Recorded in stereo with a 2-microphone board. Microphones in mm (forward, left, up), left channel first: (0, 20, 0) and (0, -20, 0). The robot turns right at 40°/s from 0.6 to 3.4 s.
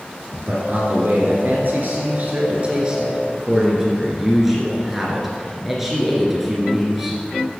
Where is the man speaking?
115° right, 2 m; by 7.2 s 5° right, 2 m.